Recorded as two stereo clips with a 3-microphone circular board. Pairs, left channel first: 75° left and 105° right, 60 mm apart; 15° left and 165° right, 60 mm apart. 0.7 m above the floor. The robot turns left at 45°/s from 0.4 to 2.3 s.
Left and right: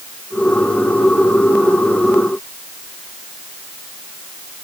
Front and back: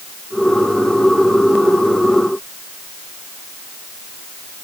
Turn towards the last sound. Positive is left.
No sound to turn to.